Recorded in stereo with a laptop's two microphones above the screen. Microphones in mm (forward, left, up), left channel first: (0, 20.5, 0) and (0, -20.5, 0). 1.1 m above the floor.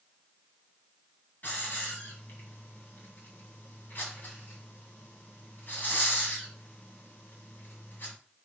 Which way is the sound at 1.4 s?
50° left (ahead or behind).